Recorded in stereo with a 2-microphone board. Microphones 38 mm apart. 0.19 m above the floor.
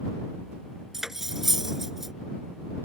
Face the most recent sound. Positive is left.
turn(degrees=-10)  # may be behind; listen again after turning